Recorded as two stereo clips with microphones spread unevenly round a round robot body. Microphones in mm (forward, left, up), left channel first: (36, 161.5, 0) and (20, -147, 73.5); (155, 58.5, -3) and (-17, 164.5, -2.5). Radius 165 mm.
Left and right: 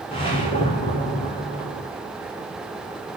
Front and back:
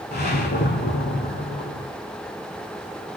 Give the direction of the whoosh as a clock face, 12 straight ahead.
12 o'clock.